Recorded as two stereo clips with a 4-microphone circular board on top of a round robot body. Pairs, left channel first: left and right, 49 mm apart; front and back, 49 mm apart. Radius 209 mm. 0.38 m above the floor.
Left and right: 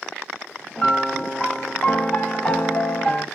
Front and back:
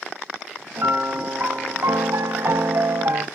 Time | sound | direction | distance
0.8 | a piano | 155° left | 1.0 m